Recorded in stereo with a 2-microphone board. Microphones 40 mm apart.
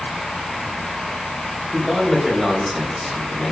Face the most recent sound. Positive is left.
turn(degrees=-10)  # may be behind; listen again after turning